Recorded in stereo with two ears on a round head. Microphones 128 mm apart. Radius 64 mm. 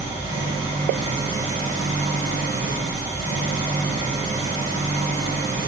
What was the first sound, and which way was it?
An engine running, 55° right (ahead or behind).